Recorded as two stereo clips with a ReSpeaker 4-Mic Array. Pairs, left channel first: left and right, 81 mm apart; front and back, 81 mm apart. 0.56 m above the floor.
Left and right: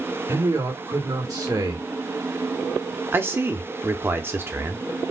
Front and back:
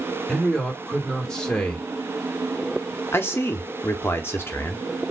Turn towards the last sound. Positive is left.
turn(degrees=-45)